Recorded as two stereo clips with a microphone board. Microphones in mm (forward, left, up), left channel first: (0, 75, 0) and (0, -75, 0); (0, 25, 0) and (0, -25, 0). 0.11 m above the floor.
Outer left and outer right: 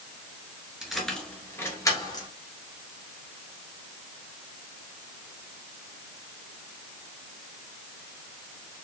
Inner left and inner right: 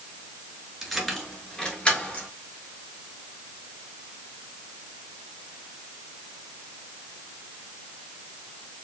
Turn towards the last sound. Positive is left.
turn(degrees=30)  # may be behind; listen again after turning